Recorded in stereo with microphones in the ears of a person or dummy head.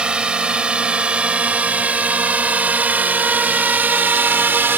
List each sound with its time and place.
0.0 s a drone: 5° right (ahead or behind); by 4.8 s 10° right (ahead or behind)